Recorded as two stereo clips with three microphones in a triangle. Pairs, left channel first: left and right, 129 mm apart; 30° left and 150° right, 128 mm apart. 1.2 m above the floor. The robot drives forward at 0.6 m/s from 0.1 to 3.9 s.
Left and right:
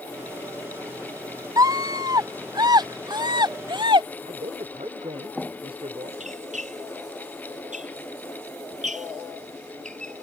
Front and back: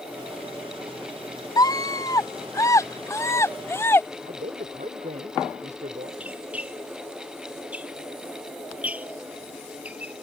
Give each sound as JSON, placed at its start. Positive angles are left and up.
{"t": 1.6, "sound": "a scream", "azimuth_deg": -30}
{"t": 4.2, "sound": "a man speaking", "azimuth_deg": -130}
{"t": 6.2, "sound": "a squeak", "azimuth_deg": -70}